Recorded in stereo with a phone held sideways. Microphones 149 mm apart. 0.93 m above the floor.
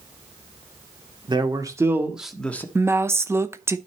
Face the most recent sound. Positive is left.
turn(degrees=-15)  # may be behind; listen again after turning